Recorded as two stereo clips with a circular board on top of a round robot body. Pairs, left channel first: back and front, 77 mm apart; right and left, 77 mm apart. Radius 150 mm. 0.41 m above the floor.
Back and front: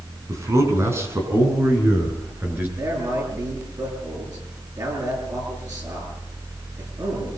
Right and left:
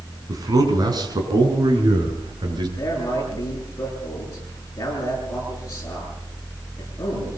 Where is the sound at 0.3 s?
50° left, 5 m; by 2.7 s 65° left, 7.5 m.